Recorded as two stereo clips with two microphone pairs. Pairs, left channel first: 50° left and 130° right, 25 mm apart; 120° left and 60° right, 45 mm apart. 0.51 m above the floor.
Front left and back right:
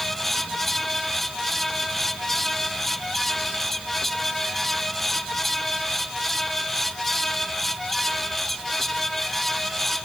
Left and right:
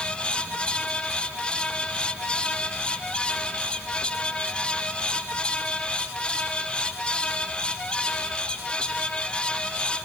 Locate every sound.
Only background noise.